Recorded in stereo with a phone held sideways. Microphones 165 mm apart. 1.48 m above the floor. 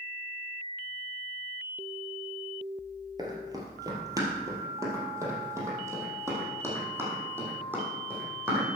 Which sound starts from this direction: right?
Running footsteps, at 3.2 s.